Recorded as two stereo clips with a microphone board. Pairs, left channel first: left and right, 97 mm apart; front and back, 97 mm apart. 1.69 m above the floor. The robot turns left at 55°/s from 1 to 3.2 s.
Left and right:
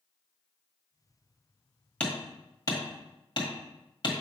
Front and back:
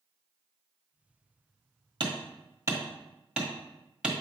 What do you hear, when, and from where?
2.0 s hammering: 165° left, 1.6 m; by 4.1 s 100° left, 1.6 m